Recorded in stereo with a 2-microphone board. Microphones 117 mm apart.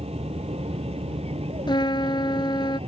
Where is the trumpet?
45° left (ahead or behind).